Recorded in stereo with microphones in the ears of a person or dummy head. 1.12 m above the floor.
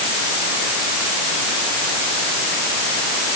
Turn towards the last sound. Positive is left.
No sound to turn to.